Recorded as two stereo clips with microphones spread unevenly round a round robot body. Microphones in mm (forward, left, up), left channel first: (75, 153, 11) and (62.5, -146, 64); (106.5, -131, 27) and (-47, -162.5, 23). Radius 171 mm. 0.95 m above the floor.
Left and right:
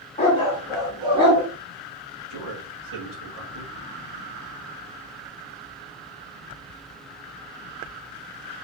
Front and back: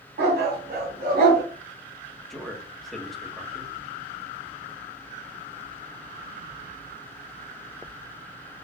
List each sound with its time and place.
0.2 s a dog barking: 160° left, 1.5 m; by 1.4 s 160° right, 2.0 m
2.3 s a man speaking: 75° right, 1.7 m